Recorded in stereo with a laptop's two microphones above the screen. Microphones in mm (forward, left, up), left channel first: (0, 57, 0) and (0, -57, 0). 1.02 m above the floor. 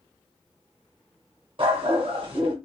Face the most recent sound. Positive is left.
turn(degrees=-45)  # may be behind; listen again after turning